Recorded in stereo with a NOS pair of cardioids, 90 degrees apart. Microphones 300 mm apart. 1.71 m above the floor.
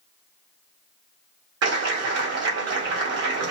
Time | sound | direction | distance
1.6 | a clap | 55° right | 1.7 m